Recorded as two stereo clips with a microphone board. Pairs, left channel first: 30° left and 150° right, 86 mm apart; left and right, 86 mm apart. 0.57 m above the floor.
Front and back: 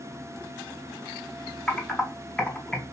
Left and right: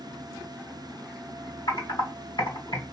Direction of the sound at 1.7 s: 115° left.